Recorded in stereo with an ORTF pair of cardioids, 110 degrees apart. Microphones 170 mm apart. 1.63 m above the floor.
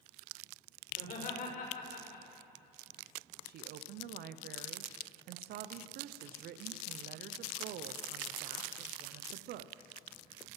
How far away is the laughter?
About 6 m.